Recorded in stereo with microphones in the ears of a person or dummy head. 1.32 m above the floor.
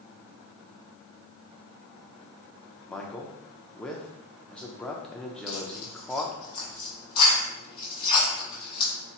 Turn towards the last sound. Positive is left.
turn(degrees=30)  # may be behind; listen again after turning